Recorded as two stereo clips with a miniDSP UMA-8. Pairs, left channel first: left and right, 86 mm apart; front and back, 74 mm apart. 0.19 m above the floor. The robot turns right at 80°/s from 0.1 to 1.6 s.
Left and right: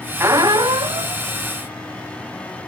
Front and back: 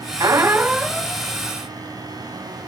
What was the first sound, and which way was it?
A squeak, 145° right.